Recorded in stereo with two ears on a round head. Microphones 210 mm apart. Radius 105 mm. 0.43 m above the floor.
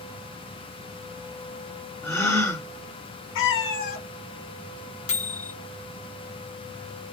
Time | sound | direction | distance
2.0 | a gasp | 10° left (ahead or behind) | 1.7 m
3.4 | a cat meowing | 50° left (ahead or behind) | 1.0 m
5.1 | a microwave | 30° left (ahead or behind) | 1.2 m